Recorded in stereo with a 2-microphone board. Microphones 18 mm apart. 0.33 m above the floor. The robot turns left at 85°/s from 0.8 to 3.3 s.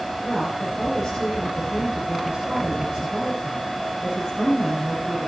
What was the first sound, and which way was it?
A woman speaking, 45° left.